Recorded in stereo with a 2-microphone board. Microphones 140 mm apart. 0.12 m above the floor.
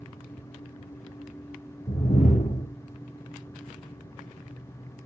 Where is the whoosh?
60° left (ahead or behind), 2.5 m.